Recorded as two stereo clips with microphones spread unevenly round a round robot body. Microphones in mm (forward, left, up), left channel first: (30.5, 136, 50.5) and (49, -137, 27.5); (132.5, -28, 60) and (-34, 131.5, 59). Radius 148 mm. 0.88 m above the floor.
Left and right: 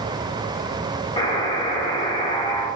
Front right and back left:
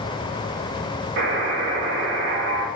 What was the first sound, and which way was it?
A buzzer, 170° left.